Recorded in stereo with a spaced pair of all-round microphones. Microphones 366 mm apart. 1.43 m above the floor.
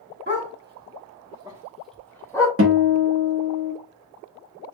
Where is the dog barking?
30° right (ahead or behind), 1.3 m; by 2.5 s 10° left (ahead or behind), 1.5 m.